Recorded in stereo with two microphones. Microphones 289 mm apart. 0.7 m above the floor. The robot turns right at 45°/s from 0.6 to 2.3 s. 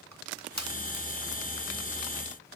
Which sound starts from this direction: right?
Crushing, at 0.1 s.